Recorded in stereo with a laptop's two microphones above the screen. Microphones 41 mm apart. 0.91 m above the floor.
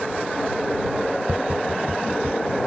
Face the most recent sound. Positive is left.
turn(degrees=-65)  # may be behind; listen again after turning